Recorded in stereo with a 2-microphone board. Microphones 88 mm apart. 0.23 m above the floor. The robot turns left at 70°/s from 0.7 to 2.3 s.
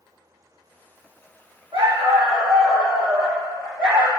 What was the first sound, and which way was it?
A dog barking, 75° right.